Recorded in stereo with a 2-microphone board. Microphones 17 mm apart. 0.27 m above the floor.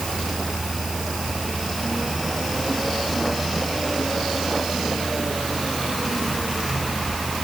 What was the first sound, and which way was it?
Only background noise.